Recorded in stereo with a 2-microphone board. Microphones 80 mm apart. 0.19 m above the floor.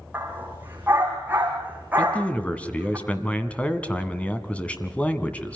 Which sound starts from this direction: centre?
A man speaking, at 2.0 s.